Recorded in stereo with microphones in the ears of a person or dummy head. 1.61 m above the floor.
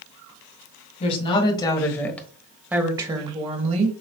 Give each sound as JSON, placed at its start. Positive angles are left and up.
{"t": 1.0, "sound": "a woman speaking", "side_deg": 30, "distance_m": 1.5}